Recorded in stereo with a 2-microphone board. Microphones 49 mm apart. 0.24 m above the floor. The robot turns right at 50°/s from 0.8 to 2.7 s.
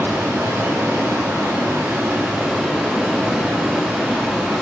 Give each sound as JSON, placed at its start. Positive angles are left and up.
{"t": 0.0, "sound": "running water", "azimuth_deg": -110, "distance_m": 0.9}